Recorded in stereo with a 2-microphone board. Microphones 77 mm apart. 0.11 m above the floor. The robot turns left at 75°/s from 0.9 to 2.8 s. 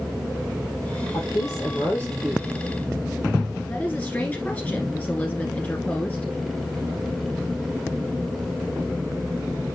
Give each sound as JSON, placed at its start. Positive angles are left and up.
{"t": 1.1, "sound": "a woman speaking", "azimuth_deg": 85, "distance_m": 2.5}
{"t": 3.7, "sound": "a woman speaking", "side_deg": 20, "distance_m": 1.6}